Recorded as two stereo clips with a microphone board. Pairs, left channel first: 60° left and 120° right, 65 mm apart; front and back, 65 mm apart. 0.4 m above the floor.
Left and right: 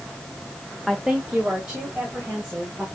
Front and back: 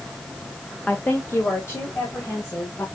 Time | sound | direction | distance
0.9 | a woman speaking | 30° right | 0.8 m